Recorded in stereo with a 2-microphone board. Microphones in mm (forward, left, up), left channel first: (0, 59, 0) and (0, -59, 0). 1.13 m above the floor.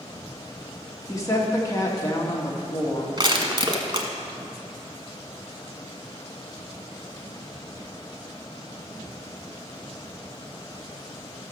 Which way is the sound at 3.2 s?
40° right (ahead or behind).